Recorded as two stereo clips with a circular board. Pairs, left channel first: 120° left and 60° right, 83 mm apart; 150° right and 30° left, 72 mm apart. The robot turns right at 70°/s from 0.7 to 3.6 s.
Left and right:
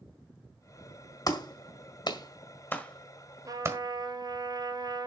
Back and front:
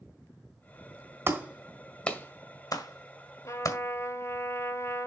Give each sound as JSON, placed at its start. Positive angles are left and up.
{"t": 1.3, "sound": "a clap", "azimuth_deg": 80, "distance_m": 1.6}
{"t": 3.5, "sound": "a trumpet", "azimuth_deg": -105, "distance_m": 1.4}